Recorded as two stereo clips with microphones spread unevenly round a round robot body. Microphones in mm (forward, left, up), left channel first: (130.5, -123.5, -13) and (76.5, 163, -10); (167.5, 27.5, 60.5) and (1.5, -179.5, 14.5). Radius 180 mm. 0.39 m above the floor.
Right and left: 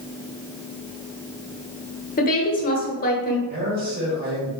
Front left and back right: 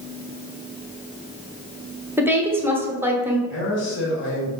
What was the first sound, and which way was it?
A woman speaking, 75° right.